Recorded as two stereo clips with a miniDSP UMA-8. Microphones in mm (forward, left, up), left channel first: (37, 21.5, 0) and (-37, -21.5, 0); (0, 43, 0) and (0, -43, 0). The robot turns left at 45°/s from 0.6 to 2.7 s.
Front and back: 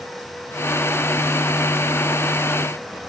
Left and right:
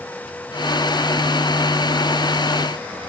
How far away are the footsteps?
No footsteps in this recording.